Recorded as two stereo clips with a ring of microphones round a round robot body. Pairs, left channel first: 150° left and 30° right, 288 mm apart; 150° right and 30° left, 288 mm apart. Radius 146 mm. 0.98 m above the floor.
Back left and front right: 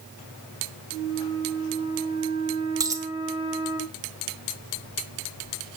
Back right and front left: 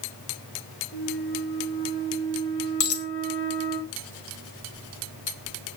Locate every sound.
0.9 s a flute: 105° right, 5 m
2.8 s a dropped coin: 110° right, 1.6 m